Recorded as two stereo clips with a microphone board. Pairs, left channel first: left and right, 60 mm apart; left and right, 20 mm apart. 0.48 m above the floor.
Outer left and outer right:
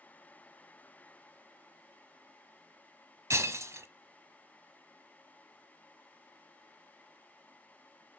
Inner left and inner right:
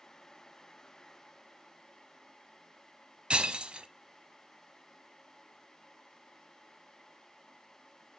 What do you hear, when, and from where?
3.3 s breaking glass: 55° right (ahead or behind), 0.7 m